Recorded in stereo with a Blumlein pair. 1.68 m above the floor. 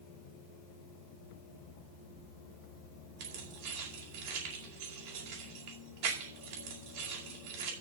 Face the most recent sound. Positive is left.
turn(degrees=-50)